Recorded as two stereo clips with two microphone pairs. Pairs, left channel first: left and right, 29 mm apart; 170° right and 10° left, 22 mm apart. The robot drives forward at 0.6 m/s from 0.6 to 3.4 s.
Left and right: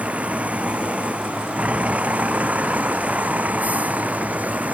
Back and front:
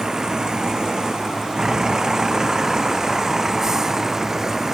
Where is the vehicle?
50° right; by 4.7 s 55° right.